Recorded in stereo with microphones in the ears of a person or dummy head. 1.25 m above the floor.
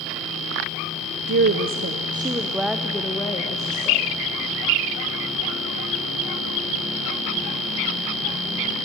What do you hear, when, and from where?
1.3 s a woman speaking: 65° right (ahead or behind), 0.8 m; by 4.1 s 20° left (ahead or behind), 1.5 m